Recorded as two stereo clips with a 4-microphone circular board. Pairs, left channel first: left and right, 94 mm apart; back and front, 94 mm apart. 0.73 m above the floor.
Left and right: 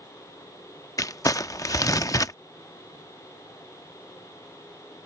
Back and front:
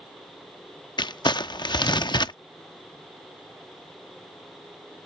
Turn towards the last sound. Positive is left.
turn(degrees=140)